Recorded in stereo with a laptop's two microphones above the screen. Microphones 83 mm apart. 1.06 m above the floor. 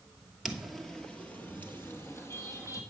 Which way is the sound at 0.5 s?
5° right (ahead or behind).